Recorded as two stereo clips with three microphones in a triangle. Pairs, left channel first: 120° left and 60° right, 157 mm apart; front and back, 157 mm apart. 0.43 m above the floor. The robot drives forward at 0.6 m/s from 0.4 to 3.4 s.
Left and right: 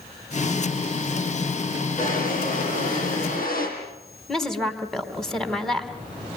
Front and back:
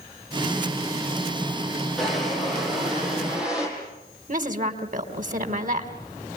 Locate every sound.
2.0 s a drawer: 90° left, 6.5 m; by 3.7 s 95° left, 6.5 m
4.3 s a woman speaking: 155° right, 3.5 m